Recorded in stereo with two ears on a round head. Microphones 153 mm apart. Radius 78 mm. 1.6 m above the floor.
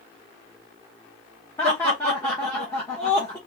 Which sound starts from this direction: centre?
Laughter, at 1.6 s.